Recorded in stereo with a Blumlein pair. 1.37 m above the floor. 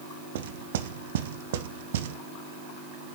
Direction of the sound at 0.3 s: 60° right.